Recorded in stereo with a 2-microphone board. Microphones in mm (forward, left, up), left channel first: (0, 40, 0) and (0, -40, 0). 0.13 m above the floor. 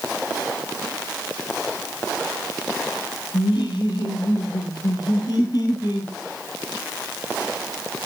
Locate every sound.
3.3 s laughter: 70° left (ahead or behind), 4 m; by 6.1 s 55° left (ahead or behind), 4 m